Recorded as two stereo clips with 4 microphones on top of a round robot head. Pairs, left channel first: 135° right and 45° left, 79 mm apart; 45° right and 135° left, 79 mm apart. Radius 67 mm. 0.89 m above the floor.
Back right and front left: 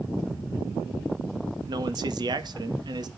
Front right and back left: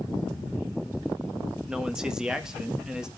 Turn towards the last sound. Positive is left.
turn(degrees=55)